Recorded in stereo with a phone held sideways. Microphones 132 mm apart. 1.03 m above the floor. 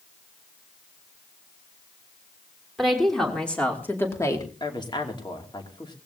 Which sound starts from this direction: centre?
A woman speaking, at 2.8 s.